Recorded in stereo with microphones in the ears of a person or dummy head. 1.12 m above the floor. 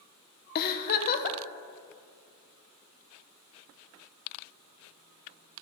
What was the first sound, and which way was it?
A giggle, 50° left (ahead or behind).